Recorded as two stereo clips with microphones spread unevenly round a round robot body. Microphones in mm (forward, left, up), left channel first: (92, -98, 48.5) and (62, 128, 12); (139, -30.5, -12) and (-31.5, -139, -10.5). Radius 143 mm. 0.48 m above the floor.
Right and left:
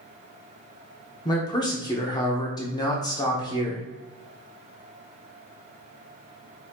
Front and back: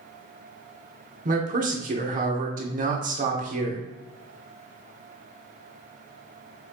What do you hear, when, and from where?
1.2 s a man speaking: 160° right, 1.0 m